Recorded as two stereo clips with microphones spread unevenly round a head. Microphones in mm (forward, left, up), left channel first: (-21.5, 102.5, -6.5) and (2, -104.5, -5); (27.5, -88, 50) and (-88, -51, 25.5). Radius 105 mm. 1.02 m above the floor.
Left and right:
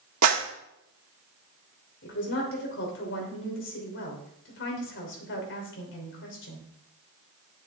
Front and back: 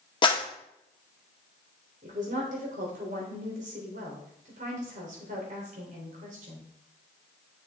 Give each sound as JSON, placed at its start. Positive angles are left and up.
{"t": 0.2, "sound": "a clap", "azimuth_deg": -65, "distance_m": 1.8}
{"t": 2.0, "sound": "a woman speaking", "azimuth_deg": 130, "distance_m": 3.0}